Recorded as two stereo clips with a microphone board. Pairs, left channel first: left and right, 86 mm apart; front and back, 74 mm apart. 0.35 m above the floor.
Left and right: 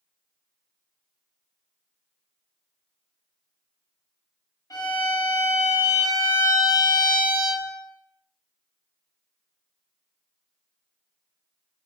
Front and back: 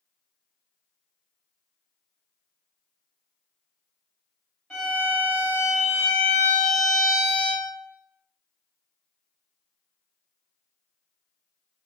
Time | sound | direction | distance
4.7 | a violin | 85° left | 1.3 m